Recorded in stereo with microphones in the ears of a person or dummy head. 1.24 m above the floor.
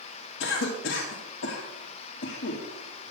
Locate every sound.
0.4 s a cough: 75° left (ahead or behind), 1.6 m